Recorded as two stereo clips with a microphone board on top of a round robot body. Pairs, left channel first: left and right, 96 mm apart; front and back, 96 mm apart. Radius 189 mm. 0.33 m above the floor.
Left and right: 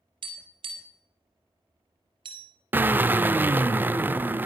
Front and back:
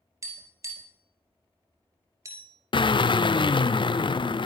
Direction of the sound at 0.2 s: 125° right.